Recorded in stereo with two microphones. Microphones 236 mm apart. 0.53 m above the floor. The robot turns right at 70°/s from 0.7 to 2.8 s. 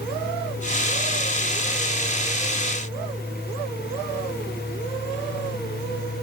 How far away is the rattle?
I don't hear a rattle.